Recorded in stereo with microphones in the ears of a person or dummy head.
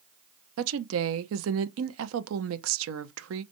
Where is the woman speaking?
85° right, 0.7 m.